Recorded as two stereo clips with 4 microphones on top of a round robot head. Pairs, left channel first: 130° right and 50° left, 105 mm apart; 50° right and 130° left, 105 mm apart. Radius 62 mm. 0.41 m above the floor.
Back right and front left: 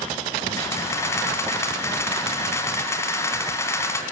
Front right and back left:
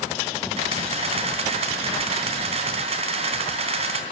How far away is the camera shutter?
About 3 m.